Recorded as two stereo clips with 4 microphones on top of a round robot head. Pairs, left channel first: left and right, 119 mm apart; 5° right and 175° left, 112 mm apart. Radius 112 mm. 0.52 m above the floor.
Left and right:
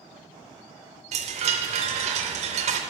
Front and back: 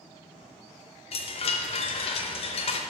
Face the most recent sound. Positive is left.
turn(degrees=-50)